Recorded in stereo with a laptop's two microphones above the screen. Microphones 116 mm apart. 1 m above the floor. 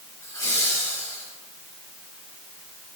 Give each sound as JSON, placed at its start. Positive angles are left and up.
{"t": 0.2, "sound": "laughter", "side_deg": 30, "distance_m": 3.0}